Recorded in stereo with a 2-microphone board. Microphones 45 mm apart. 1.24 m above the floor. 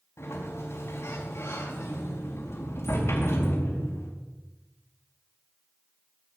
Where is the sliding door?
80° left, 4.5 m.